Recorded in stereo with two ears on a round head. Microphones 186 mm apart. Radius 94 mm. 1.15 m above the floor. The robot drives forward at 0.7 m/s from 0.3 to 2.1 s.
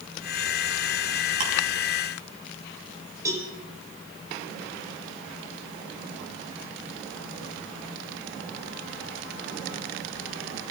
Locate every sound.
1.4 s ticking: 40° right (ahead or behind), 7 m
3.2 s a cowbell: 15° right (ahead or behind), 5.5 m